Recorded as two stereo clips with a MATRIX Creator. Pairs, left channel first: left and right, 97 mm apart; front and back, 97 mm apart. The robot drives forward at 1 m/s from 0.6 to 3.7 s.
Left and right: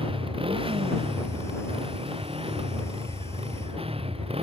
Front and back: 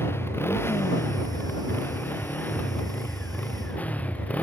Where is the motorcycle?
65° right; by 4.4 s 75° right.